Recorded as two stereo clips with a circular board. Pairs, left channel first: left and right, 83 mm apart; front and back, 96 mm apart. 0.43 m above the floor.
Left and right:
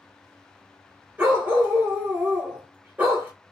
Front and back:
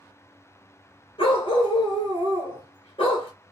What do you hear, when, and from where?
1.2 s a dog barking: 20° right, 1.5 m